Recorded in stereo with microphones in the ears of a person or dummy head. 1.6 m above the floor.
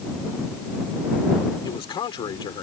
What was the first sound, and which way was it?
A man speaking, 30° left (ahead or behind).